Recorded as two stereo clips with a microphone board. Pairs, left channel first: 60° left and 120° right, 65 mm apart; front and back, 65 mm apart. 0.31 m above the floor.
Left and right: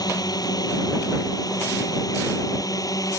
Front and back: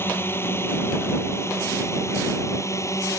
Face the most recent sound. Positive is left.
turn(degrees=35)